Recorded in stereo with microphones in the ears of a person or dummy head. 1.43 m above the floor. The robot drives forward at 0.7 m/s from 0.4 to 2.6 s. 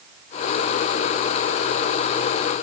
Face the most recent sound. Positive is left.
No sound to turn to.